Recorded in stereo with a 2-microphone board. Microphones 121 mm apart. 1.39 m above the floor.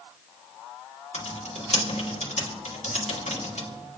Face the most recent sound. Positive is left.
turn(degrees=70)  # may be behind; listen again after turning